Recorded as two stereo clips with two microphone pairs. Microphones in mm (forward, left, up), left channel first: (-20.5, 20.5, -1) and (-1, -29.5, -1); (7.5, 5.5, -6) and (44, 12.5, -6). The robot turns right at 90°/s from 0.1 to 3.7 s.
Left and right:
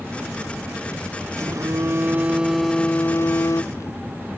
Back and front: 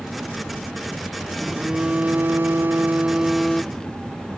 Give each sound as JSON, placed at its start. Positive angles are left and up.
{"t": 1.4, "sound": "a phone buzzing", "azimuth_deg": -90}